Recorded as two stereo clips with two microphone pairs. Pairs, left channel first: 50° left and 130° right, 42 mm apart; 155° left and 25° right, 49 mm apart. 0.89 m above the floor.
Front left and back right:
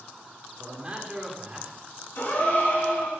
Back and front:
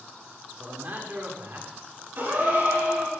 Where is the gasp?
15° left, 6 m.